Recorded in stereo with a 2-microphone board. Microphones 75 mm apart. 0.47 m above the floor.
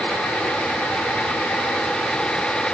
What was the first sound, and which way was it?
Only background noise.